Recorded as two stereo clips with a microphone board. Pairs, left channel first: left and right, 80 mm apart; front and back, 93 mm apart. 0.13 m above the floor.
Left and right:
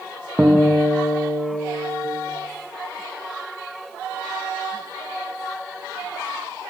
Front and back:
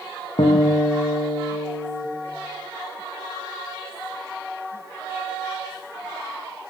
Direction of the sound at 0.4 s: 15° right.